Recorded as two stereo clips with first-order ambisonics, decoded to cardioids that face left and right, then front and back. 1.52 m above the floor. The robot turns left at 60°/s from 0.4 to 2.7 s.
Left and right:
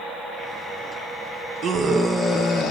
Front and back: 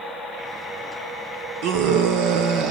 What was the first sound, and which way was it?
A scream, 155° right.